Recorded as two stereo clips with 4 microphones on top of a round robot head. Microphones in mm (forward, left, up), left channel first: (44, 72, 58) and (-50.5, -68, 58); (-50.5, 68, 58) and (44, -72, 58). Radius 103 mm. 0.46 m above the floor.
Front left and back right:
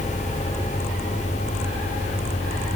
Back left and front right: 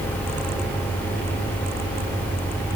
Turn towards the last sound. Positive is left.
No sound to turn to.